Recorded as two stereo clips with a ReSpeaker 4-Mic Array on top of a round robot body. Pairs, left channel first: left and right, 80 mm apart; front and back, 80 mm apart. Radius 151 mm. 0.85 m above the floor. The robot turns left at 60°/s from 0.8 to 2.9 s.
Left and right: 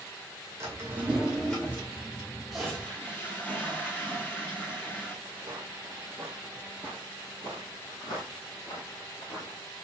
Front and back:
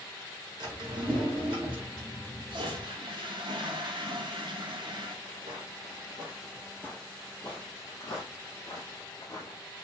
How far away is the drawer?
About 2 m.